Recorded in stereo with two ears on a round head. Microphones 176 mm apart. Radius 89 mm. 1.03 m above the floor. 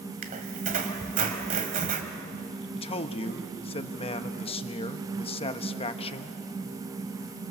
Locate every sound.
0.2 s a squeak: 40° right (ahead or behind), 1.9 m
2.8 s a man speaking: 30° left (ahead or behind), 1.1 m